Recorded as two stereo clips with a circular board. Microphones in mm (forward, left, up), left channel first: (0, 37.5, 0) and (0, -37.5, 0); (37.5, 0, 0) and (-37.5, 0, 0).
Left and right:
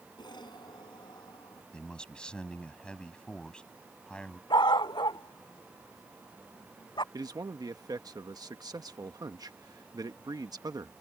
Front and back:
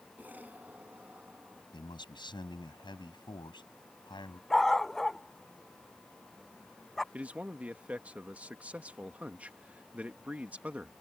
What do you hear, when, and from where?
0.2 s an explosion: 110° left
1.7 s a man speaking: 10° left
4.5 s a dog barking: 85° left
7.1 s a man speaking: 110° right